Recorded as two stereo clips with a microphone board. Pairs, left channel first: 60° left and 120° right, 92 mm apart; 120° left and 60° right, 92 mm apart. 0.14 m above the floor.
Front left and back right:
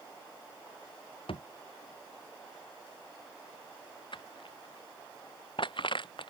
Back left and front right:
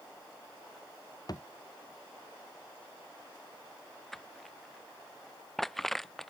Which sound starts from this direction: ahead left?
Crushing, at 4.1 s.